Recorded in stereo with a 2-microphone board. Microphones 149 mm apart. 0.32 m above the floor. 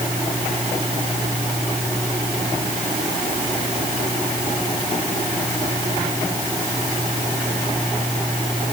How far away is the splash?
No splash in this recording.